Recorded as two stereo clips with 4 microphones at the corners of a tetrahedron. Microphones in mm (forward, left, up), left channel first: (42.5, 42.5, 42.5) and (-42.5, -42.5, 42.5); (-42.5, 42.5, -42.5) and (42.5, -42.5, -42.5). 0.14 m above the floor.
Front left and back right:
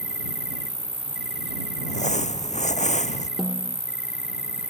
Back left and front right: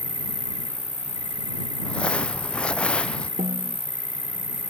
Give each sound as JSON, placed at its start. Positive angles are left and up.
{"t": 0.0, "sound": "an insect", "azimuth_deg": -50}
{"t": 1.8, "sound": "crumpling", "azimuth_deg": 55}
{"t": 3.4, "sound": "a snare drum", "azimuth_deg": -45}